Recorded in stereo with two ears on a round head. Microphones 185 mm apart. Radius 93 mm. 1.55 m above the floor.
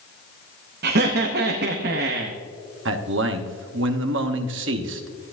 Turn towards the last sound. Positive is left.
turn(degrees=-60)  # may be behind; listen again after turning